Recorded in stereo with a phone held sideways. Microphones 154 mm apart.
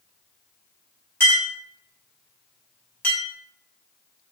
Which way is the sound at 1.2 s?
15° left (ahead or behind).